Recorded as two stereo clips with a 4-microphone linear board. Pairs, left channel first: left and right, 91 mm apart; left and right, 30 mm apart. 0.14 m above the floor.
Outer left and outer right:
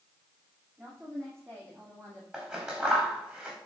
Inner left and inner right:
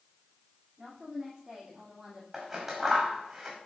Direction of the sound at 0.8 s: 25° right (ahead or behind).